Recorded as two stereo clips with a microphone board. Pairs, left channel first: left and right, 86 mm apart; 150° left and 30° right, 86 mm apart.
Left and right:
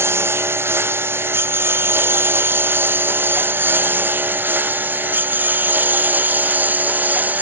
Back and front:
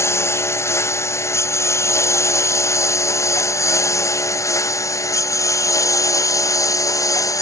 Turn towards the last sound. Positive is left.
turn(degrees=-160)